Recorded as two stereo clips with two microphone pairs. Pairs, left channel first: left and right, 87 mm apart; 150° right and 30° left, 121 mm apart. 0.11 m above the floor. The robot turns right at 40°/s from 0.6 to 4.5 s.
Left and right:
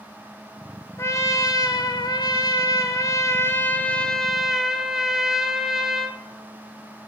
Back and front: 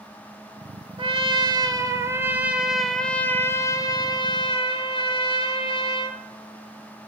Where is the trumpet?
45° left, 0.5 m; by 6.2 s 175° right, 0.5 m.